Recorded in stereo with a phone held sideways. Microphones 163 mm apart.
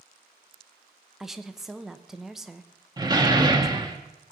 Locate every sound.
1.2 s a woman speaking: centre (ahead or behind), 0.8 m
3.0 s a door slam: 25° right (ahead or behind), 1.2 m